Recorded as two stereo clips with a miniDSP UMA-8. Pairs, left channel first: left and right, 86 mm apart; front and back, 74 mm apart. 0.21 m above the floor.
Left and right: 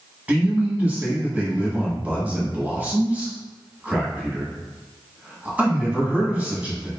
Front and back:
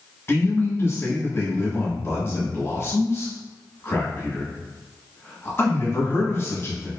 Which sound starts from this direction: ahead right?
A man speaking, at 0.3 s.